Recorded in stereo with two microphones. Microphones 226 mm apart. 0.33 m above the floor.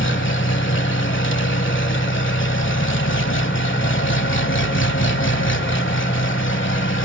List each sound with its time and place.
0.0 s an engine running: 60° left (ahead or behind), 1.1 m